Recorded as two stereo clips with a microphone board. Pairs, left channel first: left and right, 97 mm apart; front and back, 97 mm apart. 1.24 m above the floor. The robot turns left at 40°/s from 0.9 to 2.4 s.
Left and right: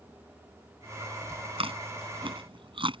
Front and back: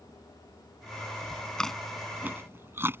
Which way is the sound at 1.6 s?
80° right.